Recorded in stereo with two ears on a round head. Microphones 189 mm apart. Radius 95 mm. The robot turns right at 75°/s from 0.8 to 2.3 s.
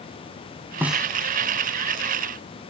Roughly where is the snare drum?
Centre.